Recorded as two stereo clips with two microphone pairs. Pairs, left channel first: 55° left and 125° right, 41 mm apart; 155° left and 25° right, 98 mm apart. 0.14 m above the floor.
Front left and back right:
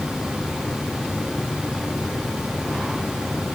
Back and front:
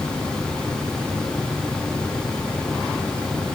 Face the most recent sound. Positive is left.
No sound to turn to.